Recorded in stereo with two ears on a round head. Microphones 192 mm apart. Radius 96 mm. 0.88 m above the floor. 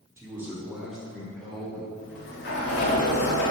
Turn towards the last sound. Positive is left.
turn(degrees=50)  # may be behind; listen again after turning